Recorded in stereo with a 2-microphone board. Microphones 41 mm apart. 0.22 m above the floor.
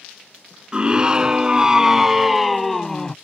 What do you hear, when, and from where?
0.7 s a scream: 20° right (ahead or behind); by 3.1 s 15° left (ahead or behind)